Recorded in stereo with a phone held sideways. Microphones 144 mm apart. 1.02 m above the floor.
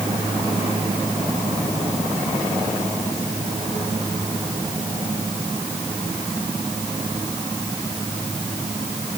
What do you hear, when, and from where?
Only background noise.